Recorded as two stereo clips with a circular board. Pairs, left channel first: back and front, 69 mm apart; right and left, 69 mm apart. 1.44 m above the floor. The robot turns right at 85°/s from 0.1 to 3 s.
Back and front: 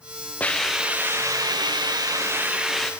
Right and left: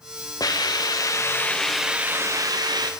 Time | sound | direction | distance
0.4 | a hiss | 115° right | 0.5 m